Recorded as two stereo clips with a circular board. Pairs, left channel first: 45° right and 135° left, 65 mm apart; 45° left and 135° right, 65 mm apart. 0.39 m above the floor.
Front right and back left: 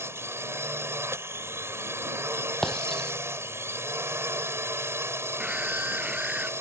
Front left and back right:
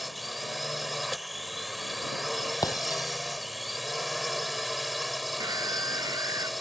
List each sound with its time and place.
0.0 s a drone: 135° left
2.6 s breaking glass: 40° left
5.4 s a scream: 155° right